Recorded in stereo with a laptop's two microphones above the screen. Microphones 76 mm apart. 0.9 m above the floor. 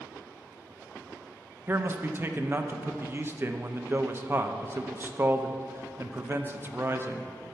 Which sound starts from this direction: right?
A man speaking, at 1.7 s.